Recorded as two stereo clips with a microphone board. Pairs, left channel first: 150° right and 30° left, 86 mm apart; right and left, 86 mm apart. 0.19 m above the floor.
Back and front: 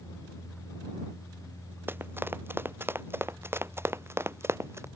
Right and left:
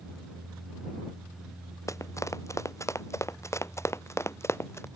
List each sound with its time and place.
1.9 s running footsteps: 35° right; by 4.9 s 30° right